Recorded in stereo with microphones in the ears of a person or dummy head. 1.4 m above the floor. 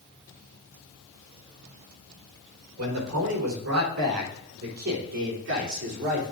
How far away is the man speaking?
About 4 m.